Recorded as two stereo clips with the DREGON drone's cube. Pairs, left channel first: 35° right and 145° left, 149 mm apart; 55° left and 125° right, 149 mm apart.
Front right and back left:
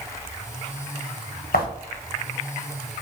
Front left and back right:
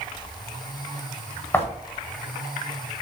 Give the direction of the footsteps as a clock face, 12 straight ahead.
1 o'clock.